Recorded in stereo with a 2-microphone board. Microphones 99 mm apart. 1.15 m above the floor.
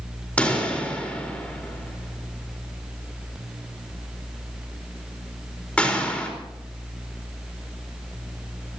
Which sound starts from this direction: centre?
A pop, at 0.4 s.